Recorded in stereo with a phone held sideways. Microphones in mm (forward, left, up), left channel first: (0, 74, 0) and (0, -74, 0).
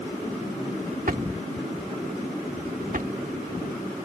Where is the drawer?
65° right (ahead or behind).